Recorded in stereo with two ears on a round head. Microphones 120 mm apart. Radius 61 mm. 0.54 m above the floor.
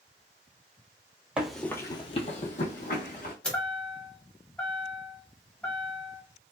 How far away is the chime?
About 0.8 m.